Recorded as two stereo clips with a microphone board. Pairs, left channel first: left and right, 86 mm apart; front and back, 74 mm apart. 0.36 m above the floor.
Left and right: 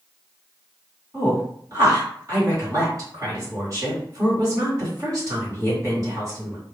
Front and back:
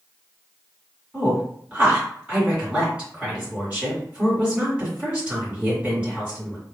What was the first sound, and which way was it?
A woman speaking, 115° right.